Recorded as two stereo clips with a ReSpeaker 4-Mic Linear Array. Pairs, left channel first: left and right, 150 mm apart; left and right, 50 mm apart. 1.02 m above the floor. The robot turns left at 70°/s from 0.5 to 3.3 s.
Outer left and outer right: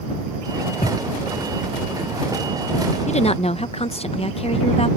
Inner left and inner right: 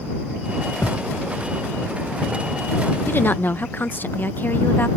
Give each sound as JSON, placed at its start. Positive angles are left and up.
{"t": 0.8, "sound": "a thud", "side_deg": 60}
{"t": 3.1, "sound": "a woman speaking", "side_deg": 50}